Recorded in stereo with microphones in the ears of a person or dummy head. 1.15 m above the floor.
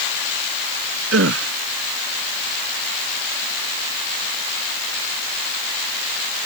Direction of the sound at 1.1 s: 70° right (ahead or behind).